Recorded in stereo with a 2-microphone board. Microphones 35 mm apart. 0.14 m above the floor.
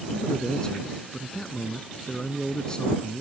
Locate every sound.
0.1 s a man speaking: 25° left (ahead or behind)